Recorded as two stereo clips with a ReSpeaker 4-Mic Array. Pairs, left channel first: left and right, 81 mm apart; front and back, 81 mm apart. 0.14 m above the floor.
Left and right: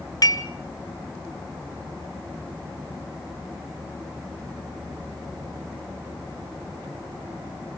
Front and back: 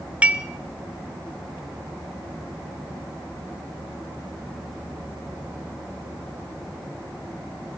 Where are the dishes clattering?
110° left, 1.3 m.